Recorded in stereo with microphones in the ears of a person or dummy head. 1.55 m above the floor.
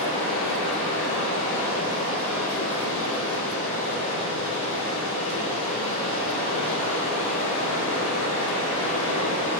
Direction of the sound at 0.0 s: 70° left (ahead or behind).